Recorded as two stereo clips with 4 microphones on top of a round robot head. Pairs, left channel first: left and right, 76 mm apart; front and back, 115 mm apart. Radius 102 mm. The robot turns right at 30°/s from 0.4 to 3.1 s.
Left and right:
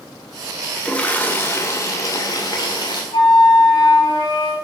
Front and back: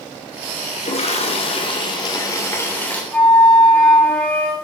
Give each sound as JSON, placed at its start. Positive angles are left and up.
{"t": 0.8, "sound": "a toilet flushing", "azimuth_deg": 15, "distance_m": 3.0}
{"t": 3.1, "sound": "a flute", "azimuth_deg": 80, "distance_m": 5.0}